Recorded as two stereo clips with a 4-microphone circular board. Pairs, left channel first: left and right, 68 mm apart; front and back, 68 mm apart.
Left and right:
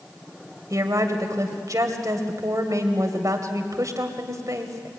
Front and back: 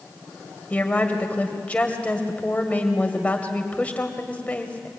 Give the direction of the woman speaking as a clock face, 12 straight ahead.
2 o'clock.